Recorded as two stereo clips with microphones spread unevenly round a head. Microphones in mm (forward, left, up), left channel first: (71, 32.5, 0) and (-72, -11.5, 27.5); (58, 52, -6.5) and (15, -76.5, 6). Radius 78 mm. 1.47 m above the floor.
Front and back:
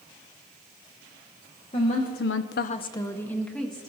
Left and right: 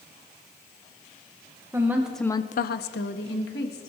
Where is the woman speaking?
40° right, 1.2 m; by 3.9 s 105° left, 2 m.